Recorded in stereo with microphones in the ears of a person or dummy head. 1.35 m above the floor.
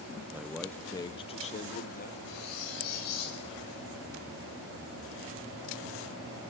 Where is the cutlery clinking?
65° left (ahead or behind), 9.5 m.